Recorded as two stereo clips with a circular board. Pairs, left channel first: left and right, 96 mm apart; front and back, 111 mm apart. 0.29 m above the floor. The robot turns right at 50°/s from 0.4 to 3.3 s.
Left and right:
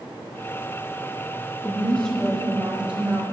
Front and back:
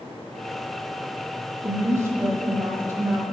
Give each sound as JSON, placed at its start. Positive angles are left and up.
{"t": 1.6, "sound": "a woman speaking", "azimuth_deg": 145, "distance_m": 0.9}